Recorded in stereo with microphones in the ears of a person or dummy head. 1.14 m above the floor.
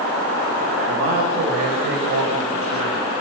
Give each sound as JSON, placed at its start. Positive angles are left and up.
{"t": 0.9, "sound": "a man speaking", "side_deg": -55, "distance_m": 5.0}